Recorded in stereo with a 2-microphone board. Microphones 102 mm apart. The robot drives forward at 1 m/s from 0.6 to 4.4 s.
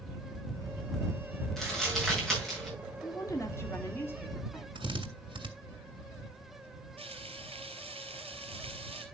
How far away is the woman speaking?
About 1.7 m.